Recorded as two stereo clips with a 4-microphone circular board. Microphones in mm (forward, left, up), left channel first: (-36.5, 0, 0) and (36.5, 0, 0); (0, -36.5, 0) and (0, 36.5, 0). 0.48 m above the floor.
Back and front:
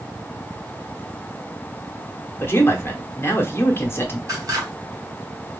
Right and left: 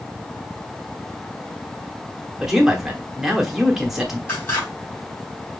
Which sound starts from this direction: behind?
A man speaking, at 2.4 s.